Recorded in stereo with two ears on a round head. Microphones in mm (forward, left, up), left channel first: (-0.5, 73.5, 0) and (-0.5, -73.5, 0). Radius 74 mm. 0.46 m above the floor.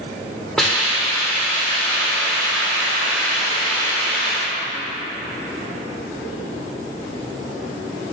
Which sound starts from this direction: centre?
A hiss, at 0.6 s.